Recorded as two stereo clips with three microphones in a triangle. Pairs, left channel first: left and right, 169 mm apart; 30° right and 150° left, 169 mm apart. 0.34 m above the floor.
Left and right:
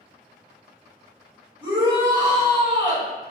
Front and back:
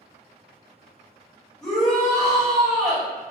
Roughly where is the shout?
Right.